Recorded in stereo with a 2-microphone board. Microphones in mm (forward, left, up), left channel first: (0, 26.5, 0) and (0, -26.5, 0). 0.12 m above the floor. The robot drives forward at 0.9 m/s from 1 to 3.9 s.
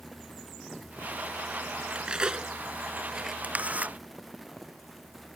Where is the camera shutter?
25° right (ahead or behind); by 4.0 s 30° right (ahead or behind).